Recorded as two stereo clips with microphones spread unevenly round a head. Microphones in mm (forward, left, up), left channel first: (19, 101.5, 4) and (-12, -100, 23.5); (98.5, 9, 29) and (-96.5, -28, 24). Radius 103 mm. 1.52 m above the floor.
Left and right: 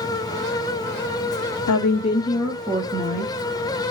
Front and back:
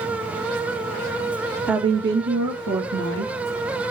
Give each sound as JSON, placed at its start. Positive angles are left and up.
{"t": 1.7, "sound": "a woman speaking", "azimuth_deg": 100, "distance_m": 0.8}